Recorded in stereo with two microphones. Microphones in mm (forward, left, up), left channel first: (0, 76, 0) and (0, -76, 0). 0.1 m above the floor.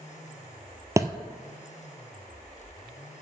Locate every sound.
1.0 s a thud: 20° right (ahead or behind), 0.7 m